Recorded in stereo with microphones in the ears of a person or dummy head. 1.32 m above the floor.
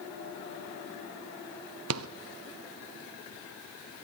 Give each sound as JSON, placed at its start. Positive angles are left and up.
{"t": 1.9, "sound": "a rattle", "side_deg": -80, "distance_m": 0.7}